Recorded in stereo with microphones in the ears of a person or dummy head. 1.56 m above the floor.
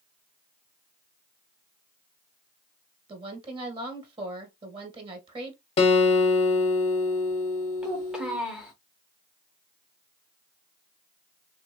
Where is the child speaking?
5° right (ahead or behind), 0.6 m.